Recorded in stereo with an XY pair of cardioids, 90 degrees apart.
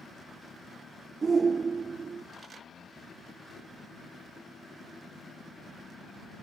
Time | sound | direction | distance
1.2 | a shout | 40° right | ?